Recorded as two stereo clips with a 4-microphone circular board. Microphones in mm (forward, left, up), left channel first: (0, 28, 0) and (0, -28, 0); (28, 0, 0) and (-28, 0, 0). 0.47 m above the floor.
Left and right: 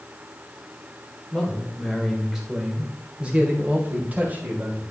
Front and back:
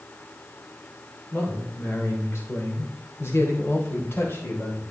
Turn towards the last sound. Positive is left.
turn(degrees=-40)